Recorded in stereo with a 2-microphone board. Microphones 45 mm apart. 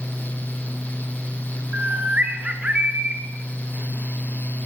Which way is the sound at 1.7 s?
30° right (ahead or behind).